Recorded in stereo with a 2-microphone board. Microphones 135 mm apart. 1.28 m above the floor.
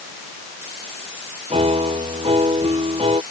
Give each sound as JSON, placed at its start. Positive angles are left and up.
{"t": 1.5, "sound": "a piano", "side_deg": -45}